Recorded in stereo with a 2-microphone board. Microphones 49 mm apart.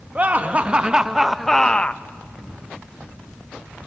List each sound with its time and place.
0.1 s laughter: 30° right (ahead or behind), 1.1 m; by 2.0 s 35° left (ahead or behind), 0.5 m